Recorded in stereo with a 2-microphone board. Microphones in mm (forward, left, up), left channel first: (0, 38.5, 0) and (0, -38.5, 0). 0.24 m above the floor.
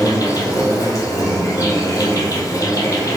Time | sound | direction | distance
0.0 | an insect | 40° left (ahead or behind) | 1.3 m